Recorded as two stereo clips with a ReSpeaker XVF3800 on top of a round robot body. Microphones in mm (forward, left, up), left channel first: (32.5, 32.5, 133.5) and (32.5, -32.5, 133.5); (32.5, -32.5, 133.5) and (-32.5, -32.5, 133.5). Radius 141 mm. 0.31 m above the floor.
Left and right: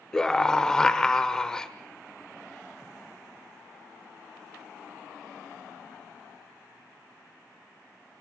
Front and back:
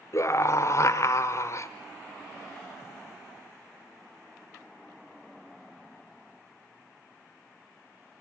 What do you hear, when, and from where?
0.1 s a scream: 10° left, 1.3 m